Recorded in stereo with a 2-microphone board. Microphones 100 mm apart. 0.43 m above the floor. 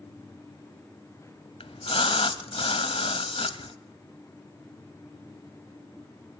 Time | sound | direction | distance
1.6 | a splash | 70° left (ahead or behind) | 0.9 m